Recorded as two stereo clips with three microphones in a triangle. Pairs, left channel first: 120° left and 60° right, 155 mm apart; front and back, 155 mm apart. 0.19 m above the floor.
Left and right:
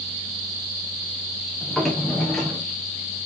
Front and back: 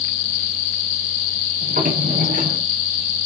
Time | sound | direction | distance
1.6 | a drawer | 150° right | 4 m